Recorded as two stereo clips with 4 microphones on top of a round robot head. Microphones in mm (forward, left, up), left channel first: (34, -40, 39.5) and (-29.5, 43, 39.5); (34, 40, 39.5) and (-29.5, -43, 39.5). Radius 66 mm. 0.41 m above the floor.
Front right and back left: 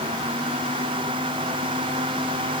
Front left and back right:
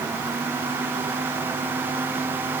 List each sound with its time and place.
Only background noise.